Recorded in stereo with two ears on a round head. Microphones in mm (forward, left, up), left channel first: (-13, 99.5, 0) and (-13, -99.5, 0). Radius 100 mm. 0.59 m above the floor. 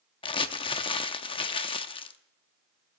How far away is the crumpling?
About 0.7 m.